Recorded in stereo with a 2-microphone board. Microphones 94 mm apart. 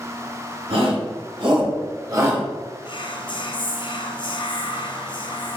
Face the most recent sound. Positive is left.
turn(degrees=55)  # may be behind; listen again after turning